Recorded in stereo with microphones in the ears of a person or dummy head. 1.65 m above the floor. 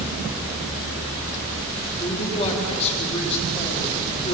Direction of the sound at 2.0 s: 30° left (ahead or behind).